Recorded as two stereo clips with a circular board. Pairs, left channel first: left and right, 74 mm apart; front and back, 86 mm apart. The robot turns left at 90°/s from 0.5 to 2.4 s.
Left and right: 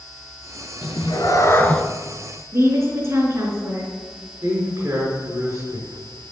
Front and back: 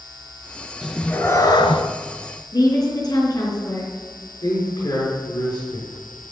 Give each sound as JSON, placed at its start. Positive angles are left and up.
{"t": 0.8, "sound": "a cat meowing", "azimuth_deg": 100, "distance_m": 1.4}
{"t": 2.5, "sound": "a woman speaking", "azimuth_deg": -35, "distance_m": 5.0}
{"t": 4.4, "sound": "a man speaking", "azimuth_deg": -35, "distance_m": 5.5}